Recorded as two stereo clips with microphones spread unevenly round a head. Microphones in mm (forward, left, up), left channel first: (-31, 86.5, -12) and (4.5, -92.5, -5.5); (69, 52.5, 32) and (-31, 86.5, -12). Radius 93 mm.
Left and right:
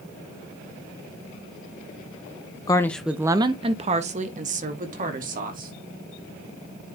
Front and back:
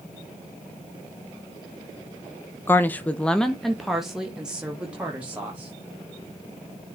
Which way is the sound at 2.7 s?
85° left.